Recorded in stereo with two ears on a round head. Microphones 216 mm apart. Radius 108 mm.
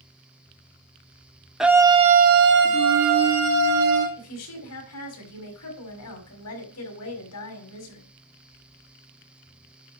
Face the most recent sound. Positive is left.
turn(degrees=70)  # may be behind; listen again after turning